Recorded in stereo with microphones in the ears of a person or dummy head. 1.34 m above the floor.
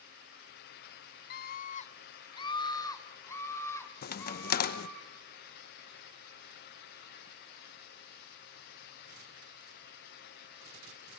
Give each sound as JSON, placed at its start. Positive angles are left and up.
{"t": 1.3, "sound": "a scream", "side_deg": 40, "distance_m": 0.6}
{"t": 4.0, "sound": "a crack", "side_deg": 50, "distance_m": 0.9}